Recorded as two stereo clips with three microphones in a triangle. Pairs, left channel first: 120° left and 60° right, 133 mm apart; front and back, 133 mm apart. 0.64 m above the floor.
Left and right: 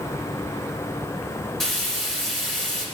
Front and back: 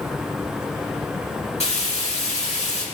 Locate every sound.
1.6 s frying: 35° left, 3.5 m